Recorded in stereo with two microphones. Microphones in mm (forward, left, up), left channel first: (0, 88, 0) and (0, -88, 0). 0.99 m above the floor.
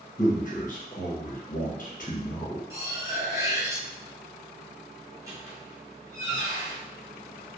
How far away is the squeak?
About 0.8 m.